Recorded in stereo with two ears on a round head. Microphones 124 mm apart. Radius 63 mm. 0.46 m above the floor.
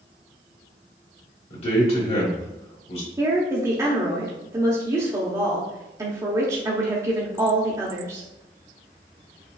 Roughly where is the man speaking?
Left.